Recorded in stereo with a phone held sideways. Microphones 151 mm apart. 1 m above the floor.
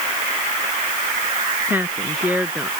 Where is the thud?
No thud in this recording.